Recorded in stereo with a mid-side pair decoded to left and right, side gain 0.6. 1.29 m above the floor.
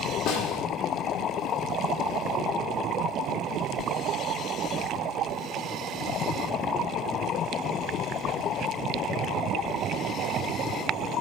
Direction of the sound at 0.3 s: 65° left.